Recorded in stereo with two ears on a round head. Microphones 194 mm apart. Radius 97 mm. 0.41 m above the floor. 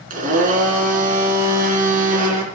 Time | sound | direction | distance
0.1 | a blender | 40° right (ahead or behind) | 3.5 m